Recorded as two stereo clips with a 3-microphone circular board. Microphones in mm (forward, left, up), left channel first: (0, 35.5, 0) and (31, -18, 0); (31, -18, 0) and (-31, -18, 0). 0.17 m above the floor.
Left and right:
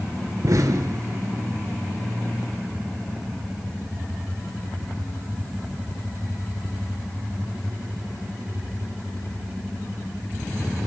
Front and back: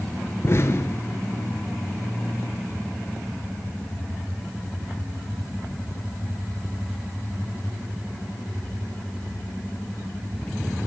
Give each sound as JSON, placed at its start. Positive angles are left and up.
{"t": 0.4, "sound": "an explosion", "azimuth_deg": -40, "distance_m": 0.9}